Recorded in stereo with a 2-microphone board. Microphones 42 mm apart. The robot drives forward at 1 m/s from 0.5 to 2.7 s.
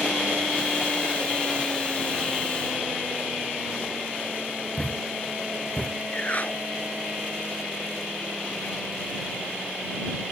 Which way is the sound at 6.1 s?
40° left (ahead or behind).